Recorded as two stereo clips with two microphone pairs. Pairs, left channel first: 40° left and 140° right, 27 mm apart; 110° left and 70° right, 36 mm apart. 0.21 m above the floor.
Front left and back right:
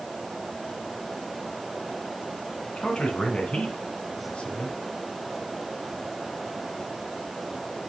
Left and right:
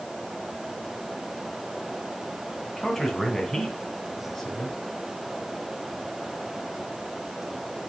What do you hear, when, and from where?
2.6 s a man speaking: 35° left, 2 m